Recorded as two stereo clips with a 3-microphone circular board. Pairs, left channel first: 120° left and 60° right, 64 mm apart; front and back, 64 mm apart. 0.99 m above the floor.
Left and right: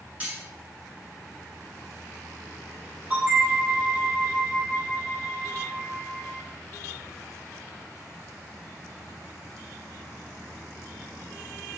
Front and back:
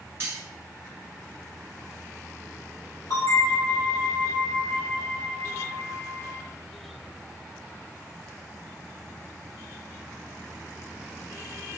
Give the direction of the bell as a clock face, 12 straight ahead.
12 o'clock.